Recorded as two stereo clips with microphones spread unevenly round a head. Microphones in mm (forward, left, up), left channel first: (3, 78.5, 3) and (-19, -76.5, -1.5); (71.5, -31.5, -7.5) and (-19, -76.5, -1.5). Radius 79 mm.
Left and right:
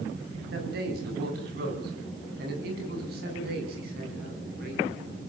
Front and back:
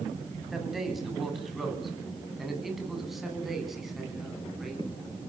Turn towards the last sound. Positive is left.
turn(degrees=-65)